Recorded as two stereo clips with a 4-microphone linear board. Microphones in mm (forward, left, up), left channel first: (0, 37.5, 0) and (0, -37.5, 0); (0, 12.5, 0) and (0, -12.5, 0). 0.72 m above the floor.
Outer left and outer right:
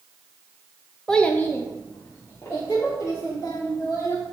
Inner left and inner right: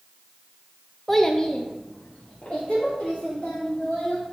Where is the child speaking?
10° left (ahead or behind), 0.6 m; by 4.3 s 35° left (ahead or behind), 3 m.